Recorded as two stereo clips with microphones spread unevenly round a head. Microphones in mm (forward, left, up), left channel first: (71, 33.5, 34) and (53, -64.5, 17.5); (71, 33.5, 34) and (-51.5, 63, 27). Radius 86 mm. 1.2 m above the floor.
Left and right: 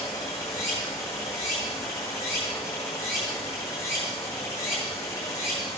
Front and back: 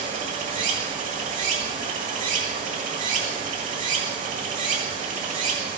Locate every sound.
0.0 s running water: 155° left, 1.9 m